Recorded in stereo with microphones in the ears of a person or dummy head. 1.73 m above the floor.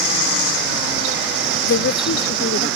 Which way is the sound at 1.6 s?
60° left (ahead or behind).